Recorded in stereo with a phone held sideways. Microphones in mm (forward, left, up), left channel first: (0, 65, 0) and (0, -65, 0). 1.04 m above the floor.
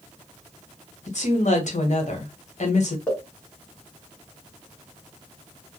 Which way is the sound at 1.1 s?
65° left (ahead or behind).